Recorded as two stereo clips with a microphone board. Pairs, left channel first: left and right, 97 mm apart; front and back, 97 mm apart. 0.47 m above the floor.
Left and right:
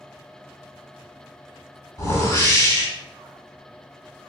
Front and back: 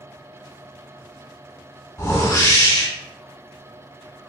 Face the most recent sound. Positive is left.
turn(degrees=50)